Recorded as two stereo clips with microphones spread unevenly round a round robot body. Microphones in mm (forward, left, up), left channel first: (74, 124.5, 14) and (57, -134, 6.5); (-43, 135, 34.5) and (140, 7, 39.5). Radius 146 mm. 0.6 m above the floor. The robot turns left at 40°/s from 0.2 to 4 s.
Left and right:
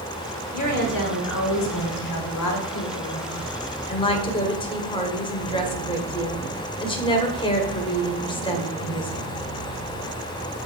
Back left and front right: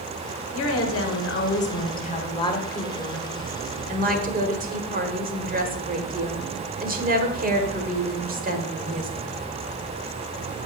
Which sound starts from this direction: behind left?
A woman speaking, at 0.5 s.